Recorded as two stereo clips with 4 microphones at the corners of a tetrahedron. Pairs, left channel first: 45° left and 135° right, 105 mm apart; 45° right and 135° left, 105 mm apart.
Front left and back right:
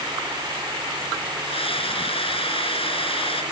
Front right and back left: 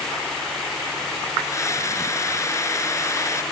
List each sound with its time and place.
1.4 s a scream: 15° left